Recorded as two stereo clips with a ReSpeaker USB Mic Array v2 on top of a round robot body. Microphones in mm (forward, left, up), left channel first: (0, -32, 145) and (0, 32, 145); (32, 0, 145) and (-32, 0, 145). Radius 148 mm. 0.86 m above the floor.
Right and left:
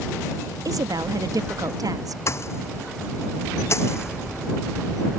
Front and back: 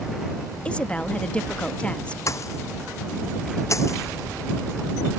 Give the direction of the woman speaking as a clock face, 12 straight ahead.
10 o'clock.